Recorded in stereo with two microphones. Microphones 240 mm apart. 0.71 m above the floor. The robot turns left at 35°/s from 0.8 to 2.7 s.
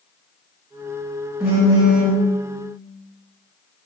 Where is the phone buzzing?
5° right (ahead or behind), 0.6 m; by 2.2 s 30° right (ahead or behind), 0.6 m.